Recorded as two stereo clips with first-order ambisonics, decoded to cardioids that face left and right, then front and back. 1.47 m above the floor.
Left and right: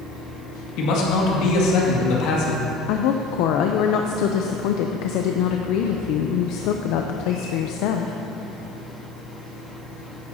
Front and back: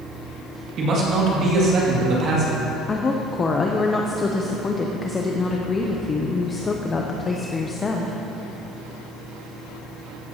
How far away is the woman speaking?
About 0.6 m.